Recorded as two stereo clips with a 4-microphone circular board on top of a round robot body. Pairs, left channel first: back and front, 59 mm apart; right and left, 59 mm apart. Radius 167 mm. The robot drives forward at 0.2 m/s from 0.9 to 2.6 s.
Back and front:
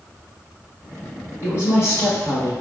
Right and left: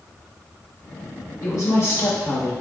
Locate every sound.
1.4 s a woman speaking: 130° right, 1.6 m; by 2.5 s 135° right, 1.7 m